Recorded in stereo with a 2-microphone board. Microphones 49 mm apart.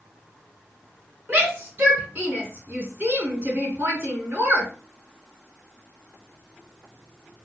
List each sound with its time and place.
1.3 s a shout: 45° right (ahead or behind), 2.5 m